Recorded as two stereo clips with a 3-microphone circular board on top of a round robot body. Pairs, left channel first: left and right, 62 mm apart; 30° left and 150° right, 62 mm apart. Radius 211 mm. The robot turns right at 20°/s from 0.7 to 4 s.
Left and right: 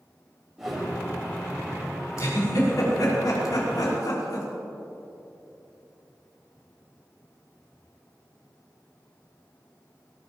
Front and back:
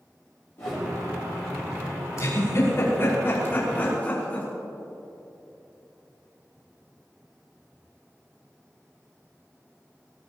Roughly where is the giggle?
Ahead left.